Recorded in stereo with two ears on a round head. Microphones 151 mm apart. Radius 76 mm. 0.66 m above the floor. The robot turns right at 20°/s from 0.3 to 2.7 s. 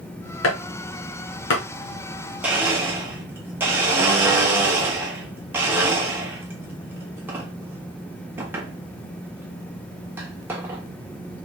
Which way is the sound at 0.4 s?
80° left.